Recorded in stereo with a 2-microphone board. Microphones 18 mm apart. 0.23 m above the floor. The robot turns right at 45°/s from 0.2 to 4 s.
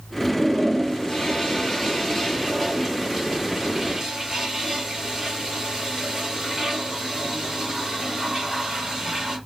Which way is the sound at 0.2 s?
45° left (ahead or behind).